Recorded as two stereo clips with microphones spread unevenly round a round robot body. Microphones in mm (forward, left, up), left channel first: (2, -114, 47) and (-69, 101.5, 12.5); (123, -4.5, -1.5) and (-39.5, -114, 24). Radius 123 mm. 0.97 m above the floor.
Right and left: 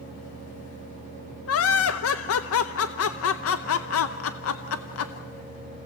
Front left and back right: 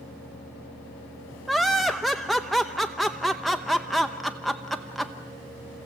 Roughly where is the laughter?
Ahead right.